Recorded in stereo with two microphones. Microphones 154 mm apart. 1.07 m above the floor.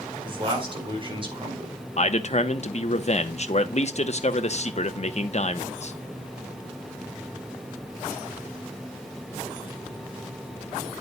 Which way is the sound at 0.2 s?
35° right (ahead or behind).